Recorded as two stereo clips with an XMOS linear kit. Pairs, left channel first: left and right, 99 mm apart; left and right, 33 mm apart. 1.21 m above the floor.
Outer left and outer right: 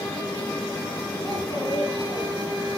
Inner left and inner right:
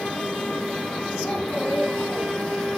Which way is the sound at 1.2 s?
30° left (ahead or behind).